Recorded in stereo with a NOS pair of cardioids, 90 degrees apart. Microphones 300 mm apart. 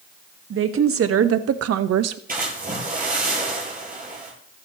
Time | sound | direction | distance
0.5 | a woman speaking | 45° right | 1.7 m
2.3 | a splash | 30° right | 8.5 m